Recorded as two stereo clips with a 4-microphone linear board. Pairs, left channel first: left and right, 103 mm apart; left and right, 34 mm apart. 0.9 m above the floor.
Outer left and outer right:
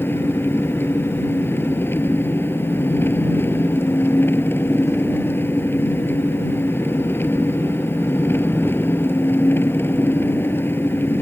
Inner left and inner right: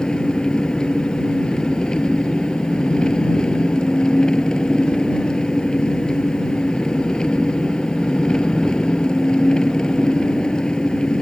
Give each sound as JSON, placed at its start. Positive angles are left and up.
{"t": 0.0, "sound": "an engine running", "side_deg": 20}